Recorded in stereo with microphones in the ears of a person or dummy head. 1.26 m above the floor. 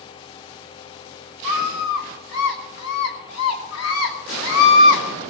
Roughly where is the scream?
Left.